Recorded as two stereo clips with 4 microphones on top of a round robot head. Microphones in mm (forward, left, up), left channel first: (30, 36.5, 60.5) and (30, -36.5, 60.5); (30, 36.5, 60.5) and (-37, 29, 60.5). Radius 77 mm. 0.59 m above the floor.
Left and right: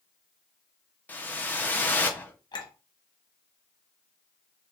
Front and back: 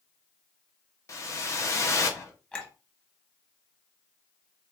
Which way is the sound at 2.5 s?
85° left.